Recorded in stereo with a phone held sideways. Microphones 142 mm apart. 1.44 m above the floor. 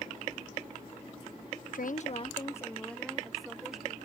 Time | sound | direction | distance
1.7 | a woman speaking | 75° left (ahead or behind) | ?